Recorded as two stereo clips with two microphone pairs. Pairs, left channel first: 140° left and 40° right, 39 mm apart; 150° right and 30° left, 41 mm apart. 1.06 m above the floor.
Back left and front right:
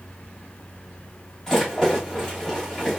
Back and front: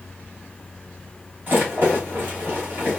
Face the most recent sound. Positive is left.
turn(degrees=65)